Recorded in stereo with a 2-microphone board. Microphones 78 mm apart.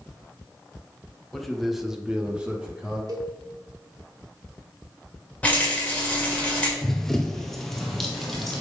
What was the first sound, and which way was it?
A man speaking, centre (ahead or behind).